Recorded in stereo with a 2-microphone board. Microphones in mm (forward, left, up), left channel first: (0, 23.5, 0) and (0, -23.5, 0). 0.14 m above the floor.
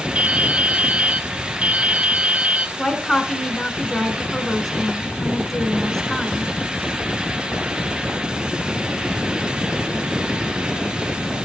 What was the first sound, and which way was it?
Dripping, 25° right (ahead or behind).